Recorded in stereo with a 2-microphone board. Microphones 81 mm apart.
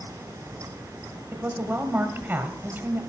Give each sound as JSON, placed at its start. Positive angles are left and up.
{"t": 1.3, "sound": "a woman speaking", "side_deg": -20, "distance_m": 1.3}